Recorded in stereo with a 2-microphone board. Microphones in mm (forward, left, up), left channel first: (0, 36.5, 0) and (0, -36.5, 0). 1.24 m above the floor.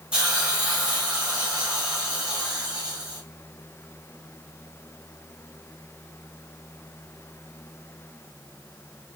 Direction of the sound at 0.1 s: 15° right (ahead or behind).